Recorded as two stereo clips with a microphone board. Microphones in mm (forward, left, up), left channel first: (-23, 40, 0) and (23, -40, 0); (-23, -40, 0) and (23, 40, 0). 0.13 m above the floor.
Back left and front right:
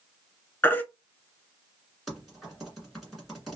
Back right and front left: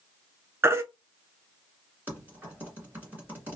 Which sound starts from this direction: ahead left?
Typing on a keyboard, at 2.1 s.